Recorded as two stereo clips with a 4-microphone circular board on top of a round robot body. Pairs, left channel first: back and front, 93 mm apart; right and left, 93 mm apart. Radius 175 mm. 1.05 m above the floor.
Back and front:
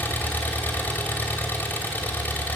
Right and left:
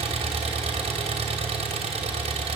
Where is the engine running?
110° left, 2.5 m.